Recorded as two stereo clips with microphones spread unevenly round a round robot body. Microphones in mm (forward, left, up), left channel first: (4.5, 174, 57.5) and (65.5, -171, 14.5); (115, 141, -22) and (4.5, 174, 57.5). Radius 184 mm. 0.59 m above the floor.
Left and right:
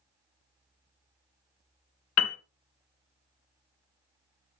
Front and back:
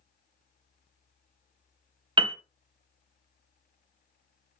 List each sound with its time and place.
2.2 s a piano: 75° left, 0.6 m